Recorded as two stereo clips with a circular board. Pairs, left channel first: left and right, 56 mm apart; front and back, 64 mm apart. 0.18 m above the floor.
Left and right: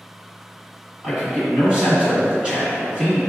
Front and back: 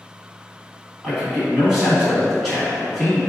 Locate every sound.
1.0 s a man speaking: 100° right, 1.5 m